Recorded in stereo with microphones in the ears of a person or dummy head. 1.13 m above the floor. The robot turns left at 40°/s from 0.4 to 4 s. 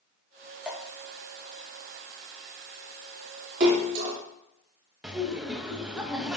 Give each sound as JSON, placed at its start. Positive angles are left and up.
{"t": 0.7, "sound": "dripping", "side_deg": -5, "distance_m": 1.0}
{"t": 3.6, "sound": "a splash", "side_deg": -45, "distance_m": 1.7}
{"t": 5.0, "sound": "laughter", "side_deg": -5, "distance_m": 1.0}